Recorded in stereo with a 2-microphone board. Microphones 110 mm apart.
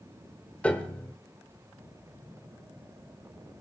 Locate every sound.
0.6 s a piano: 10° left (ahead or behind), 1.4 m